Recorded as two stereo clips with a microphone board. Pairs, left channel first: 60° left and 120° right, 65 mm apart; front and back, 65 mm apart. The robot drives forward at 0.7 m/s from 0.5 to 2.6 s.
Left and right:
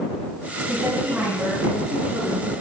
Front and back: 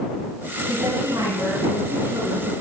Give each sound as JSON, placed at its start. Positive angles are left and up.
{"t": 0.7, "sound": "a woman speaking", "azimuth_deg": 170, "distance_m": 4.0}